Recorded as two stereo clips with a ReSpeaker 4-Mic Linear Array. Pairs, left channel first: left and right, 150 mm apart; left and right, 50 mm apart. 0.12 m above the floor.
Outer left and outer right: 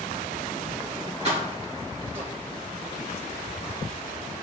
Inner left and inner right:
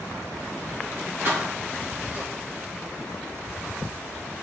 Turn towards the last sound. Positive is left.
turn(degrees=-45)  # may be behind; listen again after turning